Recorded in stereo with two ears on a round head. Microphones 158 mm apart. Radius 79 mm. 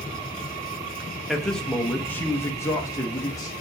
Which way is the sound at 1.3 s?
Centre (ahead or behind).